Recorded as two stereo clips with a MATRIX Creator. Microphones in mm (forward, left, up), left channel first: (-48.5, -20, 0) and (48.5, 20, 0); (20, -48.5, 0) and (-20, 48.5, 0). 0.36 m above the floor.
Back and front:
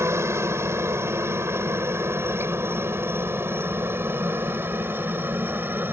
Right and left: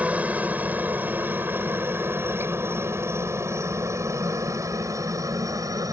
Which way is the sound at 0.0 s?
50° left.